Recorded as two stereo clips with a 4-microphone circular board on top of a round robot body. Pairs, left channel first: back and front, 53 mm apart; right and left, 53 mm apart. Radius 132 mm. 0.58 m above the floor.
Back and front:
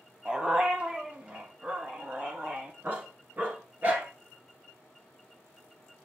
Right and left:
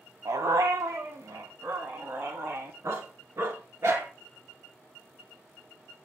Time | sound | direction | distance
0.2 | a dog barking | 75° left | 1.3 m